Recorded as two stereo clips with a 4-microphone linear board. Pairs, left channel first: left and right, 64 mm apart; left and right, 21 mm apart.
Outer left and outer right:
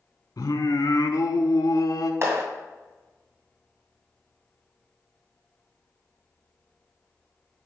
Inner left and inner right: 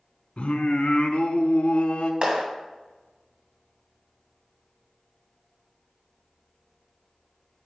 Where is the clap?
50° right (ahead or behind), 2 m.